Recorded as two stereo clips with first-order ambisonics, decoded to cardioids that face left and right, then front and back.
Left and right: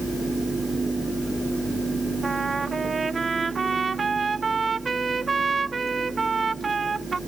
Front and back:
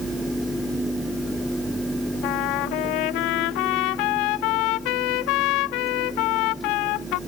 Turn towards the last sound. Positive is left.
turn(degrees=-15)